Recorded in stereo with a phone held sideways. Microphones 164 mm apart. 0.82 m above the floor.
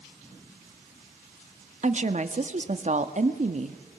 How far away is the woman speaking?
About 1.4 m.